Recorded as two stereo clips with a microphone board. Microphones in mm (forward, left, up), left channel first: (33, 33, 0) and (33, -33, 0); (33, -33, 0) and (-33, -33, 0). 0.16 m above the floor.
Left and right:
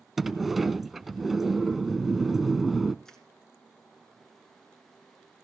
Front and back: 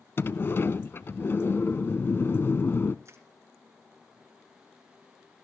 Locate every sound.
0.2 s a sliding door: 5° right, 0.5 m
3.0 s crushing: 170° left, 2 m